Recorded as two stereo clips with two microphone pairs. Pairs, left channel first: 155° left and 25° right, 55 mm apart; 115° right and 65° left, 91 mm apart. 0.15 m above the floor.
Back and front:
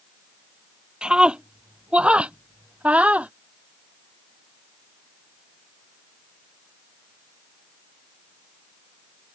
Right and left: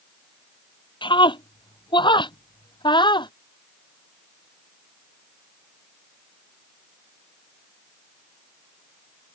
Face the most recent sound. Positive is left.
turn(degrees=-90)